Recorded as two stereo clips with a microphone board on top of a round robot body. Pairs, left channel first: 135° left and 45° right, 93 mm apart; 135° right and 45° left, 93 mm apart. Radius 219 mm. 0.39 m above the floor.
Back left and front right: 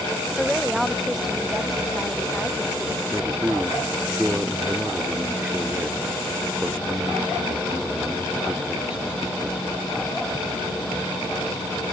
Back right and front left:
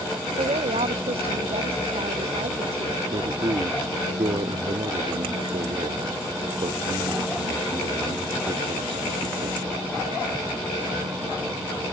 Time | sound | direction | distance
0.4 | a woman speaking | 45° left | ?
3.1 | a man speaking | 35° left | ?